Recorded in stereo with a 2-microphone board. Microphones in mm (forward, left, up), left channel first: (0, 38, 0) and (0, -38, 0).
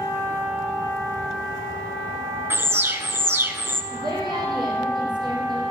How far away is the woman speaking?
About 6 m.